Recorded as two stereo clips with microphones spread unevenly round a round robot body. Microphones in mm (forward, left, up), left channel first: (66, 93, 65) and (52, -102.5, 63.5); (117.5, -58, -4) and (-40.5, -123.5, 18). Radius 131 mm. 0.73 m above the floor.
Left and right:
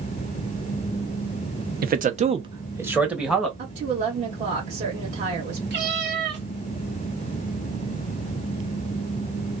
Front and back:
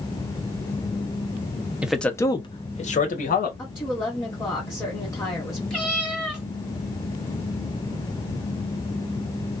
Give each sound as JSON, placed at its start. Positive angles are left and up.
{"t": 1.8, "sound": "a man speaking", "azimuth_deg": -70, "distance_m": 0.7}
{"t": 3.6, "sound": "a woman speaking", "azimuth_deg": -45, "distance_m": 1.4}
{"t": 5.7, "sound": "a cat meowing", "azimuth_deg": -65, "distance_m": 2.0}